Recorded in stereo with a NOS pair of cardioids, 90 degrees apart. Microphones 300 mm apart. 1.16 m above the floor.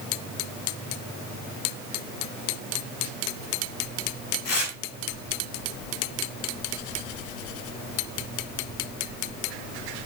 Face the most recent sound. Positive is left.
turn(degrees=55)